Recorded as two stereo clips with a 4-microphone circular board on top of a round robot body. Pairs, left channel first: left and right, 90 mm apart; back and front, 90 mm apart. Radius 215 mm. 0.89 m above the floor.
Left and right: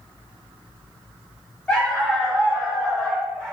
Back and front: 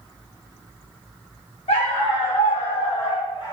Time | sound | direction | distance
1.7 | a dog barking | 170° left | 0.8 m